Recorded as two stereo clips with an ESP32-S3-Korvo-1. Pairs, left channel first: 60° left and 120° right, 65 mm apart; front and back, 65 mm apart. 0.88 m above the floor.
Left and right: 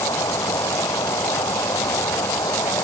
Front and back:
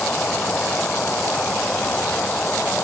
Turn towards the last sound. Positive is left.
turn(degrees=65)